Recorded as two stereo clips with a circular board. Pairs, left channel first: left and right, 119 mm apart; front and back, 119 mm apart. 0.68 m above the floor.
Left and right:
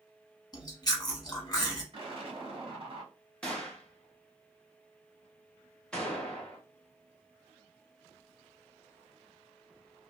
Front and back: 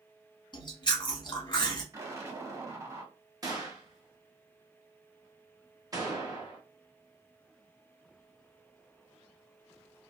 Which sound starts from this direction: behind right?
An explosion, at 1.9 s.